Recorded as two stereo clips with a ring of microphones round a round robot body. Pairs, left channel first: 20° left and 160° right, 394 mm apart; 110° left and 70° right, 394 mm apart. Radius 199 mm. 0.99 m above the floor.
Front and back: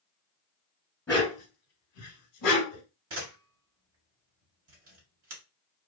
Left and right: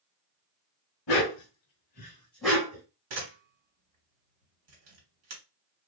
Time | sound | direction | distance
1.1 | a dog barking | 100° left | 1.1 m
3.1 | a camera shutter | 100° right | 1.4 m